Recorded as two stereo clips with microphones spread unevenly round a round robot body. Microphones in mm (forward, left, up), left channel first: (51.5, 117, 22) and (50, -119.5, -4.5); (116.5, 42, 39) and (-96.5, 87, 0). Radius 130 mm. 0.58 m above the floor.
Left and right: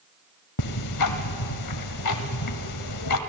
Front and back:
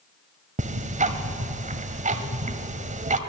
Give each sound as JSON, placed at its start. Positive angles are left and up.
{"t": 0.6, "sound": "ticking", "azimuth_deg": 110, "distance_m": 1.3}